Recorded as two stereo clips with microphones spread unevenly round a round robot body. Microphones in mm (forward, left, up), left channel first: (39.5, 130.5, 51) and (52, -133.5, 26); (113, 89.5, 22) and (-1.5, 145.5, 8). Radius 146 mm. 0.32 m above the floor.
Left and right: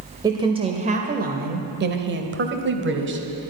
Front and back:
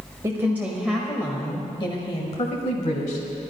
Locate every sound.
0.2 s a woman speaking: 150° right, 1.1 m; by 3.5 s 50° right, 1.7 m